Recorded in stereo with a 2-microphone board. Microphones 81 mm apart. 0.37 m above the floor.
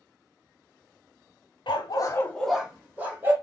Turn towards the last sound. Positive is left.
turn(degrees=-30)  # may be behind; listen again after turning